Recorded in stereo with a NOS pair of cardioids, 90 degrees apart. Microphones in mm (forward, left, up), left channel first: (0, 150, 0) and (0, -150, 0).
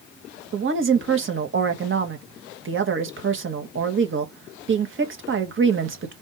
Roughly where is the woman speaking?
Ahead right.